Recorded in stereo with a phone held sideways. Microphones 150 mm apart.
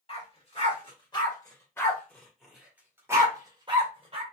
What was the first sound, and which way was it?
A dog barking, 40° left (ahead or behind).